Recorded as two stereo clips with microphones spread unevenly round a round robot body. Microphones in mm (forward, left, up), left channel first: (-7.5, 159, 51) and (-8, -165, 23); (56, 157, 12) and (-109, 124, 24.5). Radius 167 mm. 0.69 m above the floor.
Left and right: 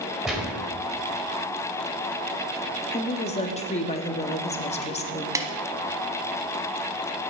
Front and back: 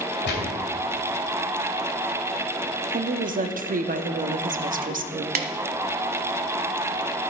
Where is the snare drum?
170° right, 0.9 m.